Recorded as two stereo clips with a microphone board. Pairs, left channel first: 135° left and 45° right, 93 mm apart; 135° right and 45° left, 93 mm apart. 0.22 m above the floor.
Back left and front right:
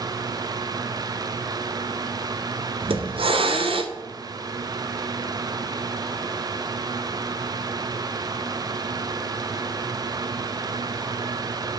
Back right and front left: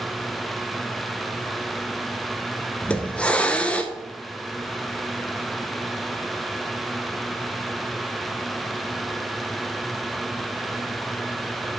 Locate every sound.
2.8 s a hiss: 60° right, 0.9 m